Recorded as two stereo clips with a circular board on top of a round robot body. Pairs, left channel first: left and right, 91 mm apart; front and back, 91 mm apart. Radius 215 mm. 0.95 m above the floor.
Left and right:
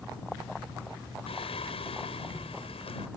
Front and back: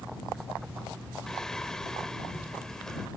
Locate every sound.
1.3 s singing: 85° left